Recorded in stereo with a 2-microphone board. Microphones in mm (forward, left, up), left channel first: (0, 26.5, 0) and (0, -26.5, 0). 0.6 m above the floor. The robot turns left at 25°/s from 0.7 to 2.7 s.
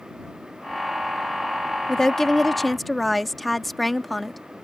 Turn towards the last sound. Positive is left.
turn(degrees=0)  # may be behind; listen again after turning